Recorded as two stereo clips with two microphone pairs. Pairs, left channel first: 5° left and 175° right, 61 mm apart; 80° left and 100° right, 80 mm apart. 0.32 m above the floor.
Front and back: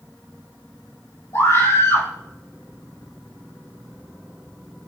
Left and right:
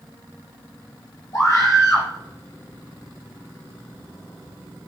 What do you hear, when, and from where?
1.3 s a scream: 35° left, 6 m